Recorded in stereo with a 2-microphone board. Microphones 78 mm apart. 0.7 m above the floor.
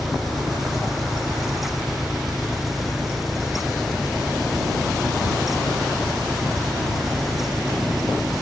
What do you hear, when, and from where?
0.0 s an engine running: centre (ahead or behind)